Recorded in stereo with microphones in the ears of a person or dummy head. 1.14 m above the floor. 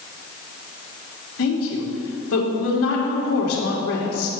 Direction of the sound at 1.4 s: 80° left.